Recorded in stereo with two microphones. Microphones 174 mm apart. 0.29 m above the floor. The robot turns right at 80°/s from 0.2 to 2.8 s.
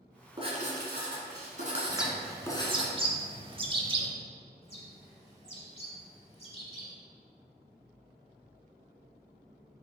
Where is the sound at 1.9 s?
Centre (ahead or behind), 0.7 m; by 4.1 s 30° right (ahead or behind), 0.7 m.